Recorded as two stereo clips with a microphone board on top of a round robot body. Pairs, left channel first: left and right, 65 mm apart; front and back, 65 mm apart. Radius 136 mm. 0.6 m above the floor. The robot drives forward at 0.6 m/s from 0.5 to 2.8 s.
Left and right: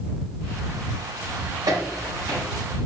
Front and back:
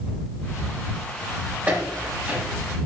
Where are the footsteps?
115° right, 3.5 m; by 2.4 s 120° right, 4 m.